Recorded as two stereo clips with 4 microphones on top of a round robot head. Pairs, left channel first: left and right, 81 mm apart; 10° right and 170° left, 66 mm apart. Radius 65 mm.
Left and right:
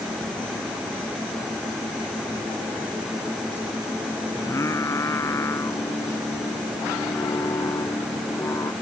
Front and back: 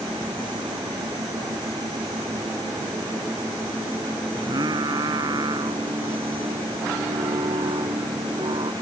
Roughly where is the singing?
Behind left.